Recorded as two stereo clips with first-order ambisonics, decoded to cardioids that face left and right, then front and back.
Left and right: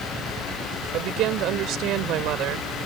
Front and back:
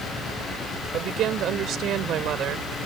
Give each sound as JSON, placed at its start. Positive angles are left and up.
{"t": 0.9, "sound": "a woman speaking", "azimuth_deg": -130}